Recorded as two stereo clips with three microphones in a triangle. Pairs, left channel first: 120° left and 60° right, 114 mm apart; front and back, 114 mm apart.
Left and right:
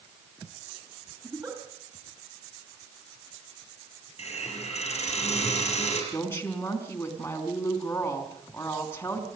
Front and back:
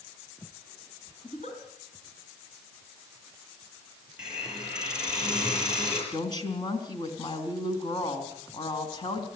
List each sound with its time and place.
1.2 s a giggle: 5° right, 4 m
4.2 s a hiss: 95° left, 6.5 m
6.1 s a woman speaking: 50° left, 3.5 m